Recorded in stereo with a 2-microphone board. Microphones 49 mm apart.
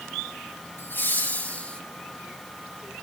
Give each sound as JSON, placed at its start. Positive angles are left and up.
{"t": 0.8, "sound": "laughter", "side_deg": 45, "distance_m": 1.9}